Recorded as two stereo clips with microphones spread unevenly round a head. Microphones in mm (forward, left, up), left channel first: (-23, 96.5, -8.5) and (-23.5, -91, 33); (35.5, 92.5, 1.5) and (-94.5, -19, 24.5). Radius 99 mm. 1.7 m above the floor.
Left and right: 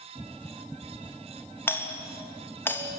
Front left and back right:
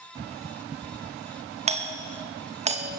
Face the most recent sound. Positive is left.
turn(degrees=170)